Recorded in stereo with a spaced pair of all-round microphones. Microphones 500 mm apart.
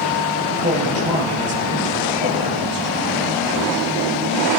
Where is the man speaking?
15° right (ahead or behind), 7 m.